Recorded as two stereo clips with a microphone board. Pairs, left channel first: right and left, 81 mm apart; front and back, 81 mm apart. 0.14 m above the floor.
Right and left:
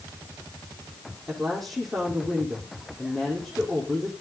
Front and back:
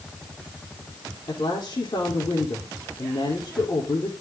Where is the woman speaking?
5° right, 5 m.